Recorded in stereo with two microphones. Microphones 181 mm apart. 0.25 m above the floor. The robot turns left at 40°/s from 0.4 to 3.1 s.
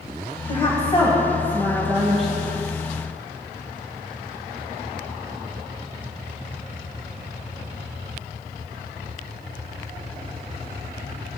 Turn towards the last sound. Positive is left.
turn(degrees=-35)